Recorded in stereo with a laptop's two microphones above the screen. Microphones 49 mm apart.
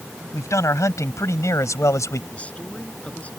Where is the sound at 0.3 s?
85° left.